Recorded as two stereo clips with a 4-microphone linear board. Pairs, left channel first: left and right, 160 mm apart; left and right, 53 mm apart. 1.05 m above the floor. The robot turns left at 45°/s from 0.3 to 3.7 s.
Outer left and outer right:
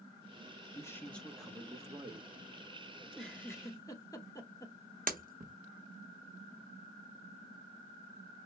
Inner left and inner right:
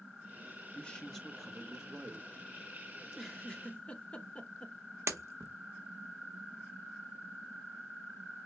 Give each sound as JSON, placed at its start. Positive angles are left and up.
{"t": 0.8, "sound": "a man speaking", "azimuth_deg": 25, "distance_m": 1.0}
{"t": 3.0, "sound": "a giggle", "side_deg": -5, "distance_m": 0.9}
{"t": 5.1, "sound": "breaking glass", "side_deg": -60, "distance_m": 0.9}